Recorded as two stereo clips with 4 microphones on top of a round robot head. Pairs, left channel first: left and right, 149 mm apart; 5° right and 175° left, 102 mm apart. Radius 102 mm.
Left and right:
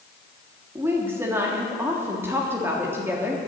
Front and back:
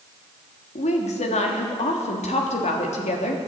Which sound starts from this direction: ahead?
A woman speaking, at 0.8 s.